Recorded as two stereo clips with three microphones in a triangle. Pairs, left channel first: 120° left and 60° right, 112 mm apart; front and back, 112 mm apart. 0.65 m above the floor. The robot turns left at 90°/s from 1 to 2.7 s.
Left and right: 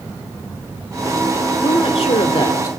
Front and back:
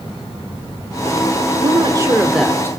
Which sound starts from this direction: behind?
A woman speaking, at 1.6 s.